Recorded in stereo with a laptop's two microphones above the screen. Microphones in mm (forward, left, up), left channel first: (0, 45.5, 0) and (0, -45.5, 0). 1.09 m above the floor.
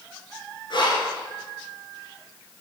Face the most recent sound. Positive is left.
turn(degrees=55)  # may be behind; listen again after turning